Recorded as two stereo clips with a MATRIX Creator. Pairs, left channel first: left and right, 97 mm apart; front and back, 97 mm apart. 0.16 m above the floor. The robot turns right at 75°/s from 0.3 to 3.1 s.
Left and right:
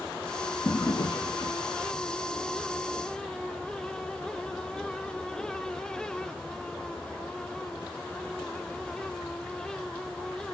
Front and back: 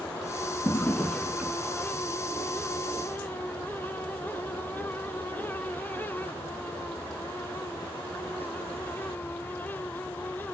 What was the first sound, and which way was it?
A drawer, 50° left.